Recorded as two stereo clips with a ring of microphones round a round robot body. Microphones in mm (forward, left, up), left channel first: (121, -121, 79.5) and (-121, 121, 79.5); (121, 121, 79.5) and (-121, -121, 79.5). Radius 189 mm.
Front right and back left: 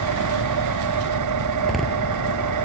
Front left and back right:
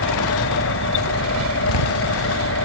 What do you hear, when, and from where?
0.0 s an engine running: 100° left
1.6 s a door slam: 45° left